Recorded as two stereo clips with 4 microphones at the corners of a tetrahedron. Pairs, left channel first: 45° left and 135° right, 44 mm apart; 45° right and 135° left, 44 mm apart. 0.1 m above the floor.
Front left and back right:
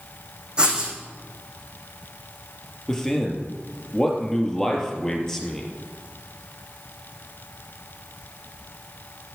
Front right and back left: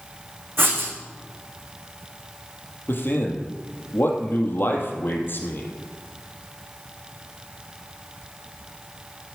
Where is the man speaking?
30° right, 3 m.